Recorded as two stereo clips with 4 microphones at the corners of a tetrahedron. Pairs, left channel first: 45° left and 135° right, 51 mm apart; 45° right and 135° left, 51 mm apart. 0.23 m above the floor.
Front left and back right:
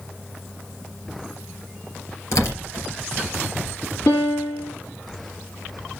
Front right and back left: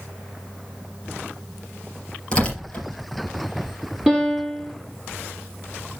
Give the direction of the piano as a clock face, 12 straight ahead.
10 o'clock.